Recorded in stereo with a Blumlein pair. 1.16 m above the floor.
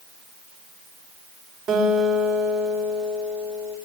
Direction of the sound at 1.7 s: 30° right.